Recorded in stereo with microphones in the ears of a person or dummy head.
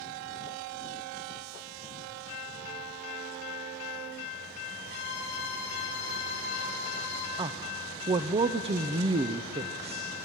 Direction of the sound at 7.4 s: 25° right (ahead or behind).